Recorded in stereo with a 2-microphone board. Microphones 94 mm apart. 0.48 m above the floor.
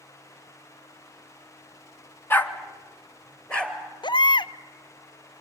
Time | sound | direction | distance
2.3 | a dog barking | 20° left (ahead or behind) | 1.2 m
4.0 | a baby crying | 55° left (ahead or behind) | 0.5 m